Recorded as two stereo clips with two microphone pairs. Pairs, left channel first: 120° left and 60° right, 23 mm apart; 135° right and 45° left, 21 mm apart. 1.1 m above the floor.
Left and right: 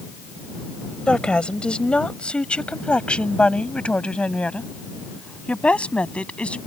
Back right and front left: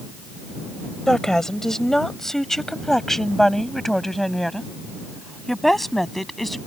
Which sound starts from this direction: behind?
A woman speaking, at 1.1 s.